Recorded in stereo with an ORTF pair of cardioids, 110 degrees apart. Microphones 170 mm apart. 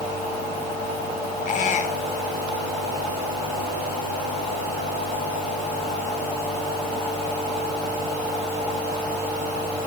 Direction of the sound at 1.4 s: 50° left.